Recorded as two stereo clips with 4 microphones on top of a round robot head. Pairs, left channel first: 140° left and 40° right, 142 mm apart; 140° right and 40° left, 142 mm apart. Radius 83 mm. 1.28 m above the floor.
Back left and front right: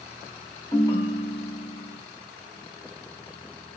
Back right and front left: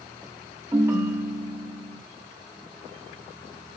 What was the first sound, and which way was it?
A ringtone, 95° left.